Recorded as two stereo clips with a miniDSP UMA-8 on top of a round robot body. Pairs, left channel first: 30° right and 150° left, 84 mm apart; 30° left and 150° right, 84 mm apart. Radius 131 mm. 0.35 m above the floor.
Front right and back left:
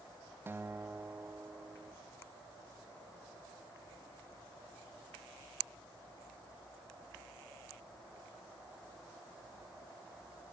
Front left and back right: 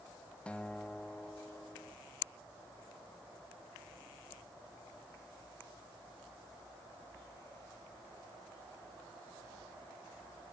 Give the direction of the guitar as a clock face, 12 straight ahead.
9 o'clock.